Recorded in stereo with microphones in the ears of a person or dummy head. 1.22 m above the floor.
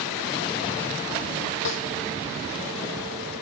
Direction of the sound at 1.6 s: 70° left (ahead or behind).